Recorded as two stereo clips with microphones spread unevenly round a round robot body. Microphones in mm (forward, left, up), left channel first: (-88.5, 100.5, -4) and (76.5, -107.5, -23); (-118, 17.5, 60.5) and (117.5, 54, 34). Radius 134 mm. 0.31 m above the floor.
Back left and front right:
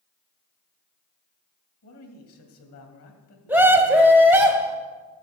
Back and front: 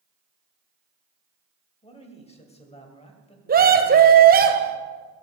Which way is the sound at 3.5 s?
25° left.